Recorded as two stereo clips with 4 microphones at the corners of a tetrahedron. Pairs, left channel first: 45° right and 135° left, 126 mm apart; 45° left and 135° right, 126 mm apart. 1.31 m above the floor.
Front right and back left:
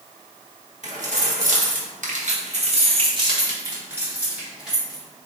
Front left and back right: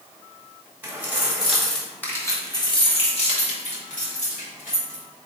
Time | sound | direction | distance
0.8 | keys jangling | 150° left | 1.3 m